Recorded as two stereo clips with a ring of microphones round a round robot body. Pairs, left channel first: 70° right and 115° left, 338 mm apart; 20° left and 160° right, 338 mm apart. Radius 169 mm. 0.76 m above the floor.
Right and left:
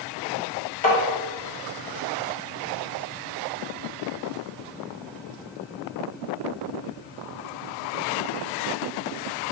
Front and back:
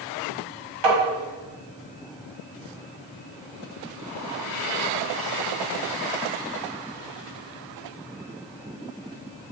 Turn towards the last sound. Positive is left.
turn(degrees=-130)